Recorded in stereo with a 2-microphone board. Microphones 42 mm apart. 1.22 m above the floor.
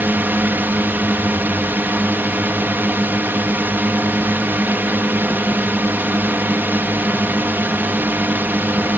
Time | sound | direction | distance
0.0 | a drone | 50° right (ahead or behind) | ?